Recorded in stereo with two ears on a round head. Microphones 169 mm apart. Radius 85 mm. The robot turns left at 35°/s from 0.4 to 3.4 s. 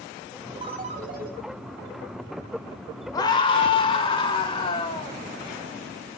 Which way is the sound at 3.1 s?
20° left (ahead or behind).